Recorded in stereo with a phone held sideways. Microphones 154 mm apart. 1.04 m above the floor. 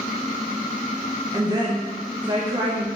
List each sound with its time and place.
1.3 s a woman speaking: 25° right (ahead or behind), 0.7 m